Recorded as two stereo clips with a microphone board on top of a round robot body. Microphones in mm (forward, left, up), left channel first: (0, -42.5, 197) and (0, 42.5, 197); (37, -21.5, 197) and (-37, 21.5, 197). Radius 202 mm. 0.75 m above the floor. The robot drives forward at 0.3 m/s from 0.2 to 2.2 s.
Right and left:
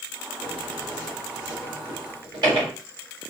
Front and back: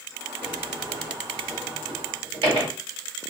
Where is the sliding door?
115° left, 1.3 m; by 2.7 s 135° left, 1.6 m.